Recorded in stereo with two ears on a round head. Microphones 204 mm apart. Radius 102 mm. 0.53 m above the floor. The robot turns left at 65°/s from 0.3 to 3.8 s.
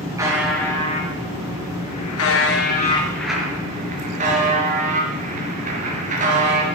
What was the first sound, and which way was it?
A buzzer, 165° right.